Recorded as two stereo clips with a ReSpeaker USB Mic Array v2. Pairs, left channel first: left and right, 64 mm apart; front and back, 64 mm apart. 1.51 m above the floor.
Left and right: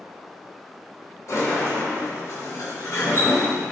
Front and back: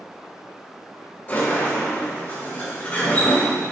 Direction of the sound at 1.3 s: 65° left.